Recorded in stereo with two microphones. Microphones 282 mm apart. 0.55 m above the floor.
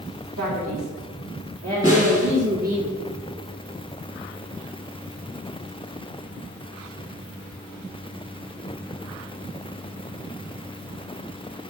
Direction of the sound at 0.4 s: 70° right (ahead or behind).